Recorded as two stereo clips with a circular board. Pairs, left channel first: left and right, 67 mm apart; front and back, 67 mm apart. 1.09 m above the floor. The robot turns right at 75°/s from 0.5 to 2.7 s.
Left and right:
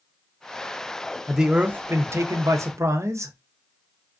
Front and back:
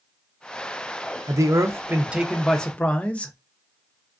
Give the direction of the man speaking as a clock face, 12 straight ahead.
6 o'clock.